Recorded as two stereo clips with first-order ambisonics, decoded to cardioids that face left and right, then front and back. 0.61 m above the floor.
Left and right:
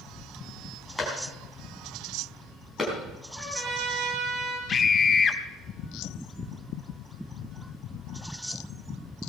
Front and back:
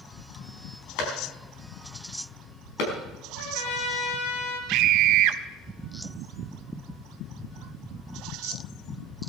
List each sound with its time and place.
1.0 s a clap: 5° left, 5 m
3.4 s a trumpet: 10° right, 4 m
4.7 s a scream: 155° left, 1.2 m